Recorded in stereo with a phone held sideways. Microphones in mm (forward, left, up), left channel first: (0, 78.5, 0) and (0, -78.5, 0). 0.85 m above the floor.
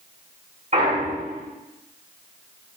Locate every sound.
0.7 s a clunk: 50° right (ahead or behind), 3 m